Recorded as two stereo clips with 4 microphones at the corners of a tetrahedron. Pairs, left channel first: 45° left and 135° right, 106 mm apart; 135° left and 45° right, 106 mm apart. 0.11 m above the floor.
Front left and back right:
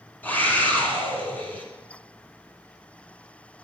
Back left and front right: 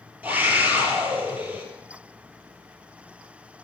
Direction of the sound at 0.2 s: Straight ahead.